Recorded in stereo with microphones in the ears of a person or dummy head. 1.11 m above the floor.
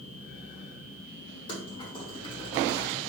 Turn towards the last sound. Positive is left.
turn(degrees=30)  # may be behind; listen again after turning